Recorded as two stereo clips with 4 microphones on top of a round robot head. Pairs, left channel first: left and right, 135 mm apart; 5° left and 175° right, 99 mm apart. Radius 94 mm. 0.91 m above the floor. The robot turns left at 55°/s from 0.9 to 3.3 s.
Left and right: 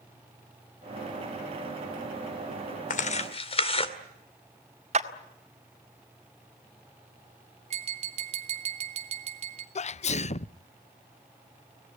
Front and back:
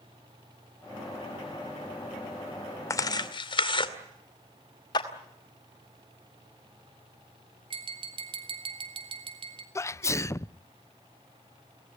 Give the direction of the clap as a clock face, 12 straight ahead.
2 o'clock.